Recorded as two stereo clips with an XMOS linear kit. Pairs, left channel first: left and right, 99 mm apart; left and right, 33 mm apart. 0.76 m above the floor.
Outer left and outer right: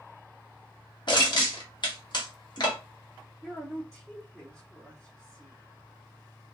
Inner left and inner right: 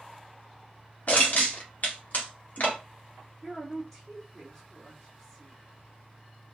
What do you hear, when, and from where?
1.1 s crushing: 55° left (ahead or behind), 1.7 m
3.4 s a woman speaking: centre (ahead or behind), 2.0 m